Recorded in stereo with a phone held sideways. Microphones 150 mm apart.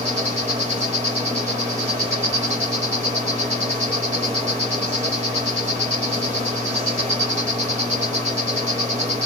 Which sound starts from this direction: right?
An insect, at 0.0 s.